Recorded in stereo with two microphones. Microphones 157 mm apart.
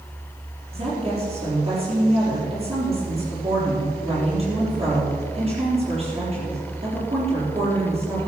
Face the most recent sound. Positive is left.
turn(degrees=-40)  # may be behind; listen again after turning